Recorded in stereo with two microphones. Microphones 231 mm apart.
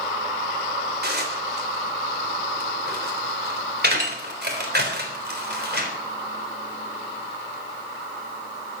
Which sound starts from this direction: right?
Dishes clattering, at 1.0 s.